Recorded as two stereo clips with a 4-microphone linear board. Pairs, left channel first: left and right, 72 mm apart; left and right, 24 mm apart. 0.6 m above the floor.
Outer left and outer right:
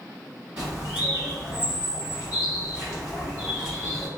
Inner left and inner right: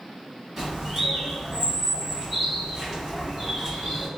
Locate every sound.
0.6 s a bird: 15° right (ahead or behind), 1.7 m